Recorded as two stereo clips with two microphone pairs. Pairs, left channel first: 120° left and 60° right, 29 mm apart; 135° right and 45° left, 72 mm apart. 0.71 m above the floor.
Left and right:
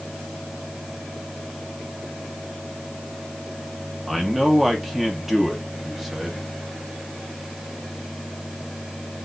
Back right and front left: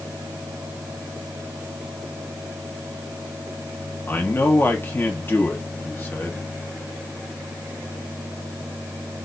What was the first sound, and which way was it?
A man speaking, 135° right.